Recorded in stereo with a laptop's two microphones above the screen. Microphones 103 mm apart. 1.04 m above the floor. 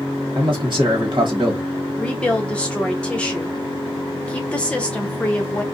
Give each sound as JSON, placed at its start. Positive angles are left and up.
{"t": 0.3, "sound": "a man speaking", "side_deg": -45, "distance_m": 1.1}
{"t": 2.0, "sound": "a woman speaking", "side_deg": 10, "distance_m": 0.7}